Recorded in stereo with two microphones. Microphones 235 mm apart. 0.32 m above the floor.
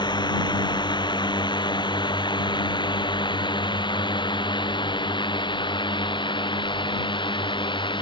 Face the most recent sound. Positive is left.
turn(degrees=20)  # may be behind; listen again after turning